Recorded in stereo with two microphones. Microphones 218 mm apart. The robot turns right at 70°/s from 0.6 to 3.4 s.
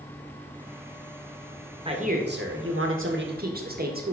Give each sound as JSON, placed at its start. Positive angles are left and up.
{"t": 1.9, "sound": "a man speaking", "azimuth_deg": -155, "distance_m": 1.6}